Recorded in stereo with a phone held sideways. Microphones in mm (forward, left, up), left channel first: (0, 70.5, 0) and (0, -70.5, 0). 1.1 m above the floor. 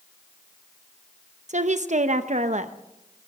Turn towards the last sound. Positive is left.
turn(degrees=-55)  # may be behind; listen again after turning